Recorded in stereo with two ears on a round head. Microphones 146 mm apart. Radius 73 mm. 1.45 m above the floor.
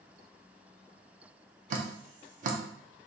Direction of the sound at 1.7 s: 50° right (ahead or behind).